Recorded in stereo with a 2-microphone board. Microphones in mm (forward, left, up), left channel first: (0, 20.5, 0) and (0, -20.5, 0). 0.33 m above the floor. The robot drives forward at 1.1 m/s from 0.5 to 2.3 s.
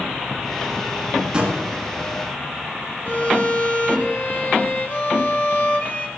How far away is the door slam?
About 3 m.